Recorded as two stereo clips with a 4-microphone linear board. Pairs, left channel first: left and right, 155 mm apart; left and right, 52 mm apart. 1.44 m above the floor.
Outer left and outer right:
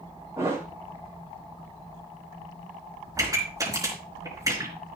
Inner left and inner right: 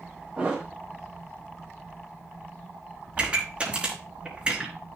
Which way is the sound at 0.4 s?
20° right (ahead or behind).